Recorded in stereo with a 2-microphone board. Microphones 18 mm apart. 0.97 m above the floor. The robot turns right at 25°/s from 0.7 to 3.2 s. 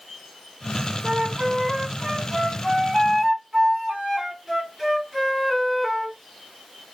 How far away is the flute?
About 1.2 m.